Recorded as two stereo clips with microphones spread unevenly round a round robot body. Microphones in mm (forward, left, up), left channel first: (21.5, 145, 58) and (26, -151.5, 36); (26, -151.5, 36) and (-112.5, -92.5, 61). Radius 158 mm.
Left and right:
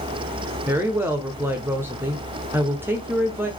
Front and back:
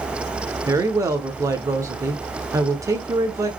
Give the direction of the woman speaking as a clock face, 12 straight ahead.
5 o'clock.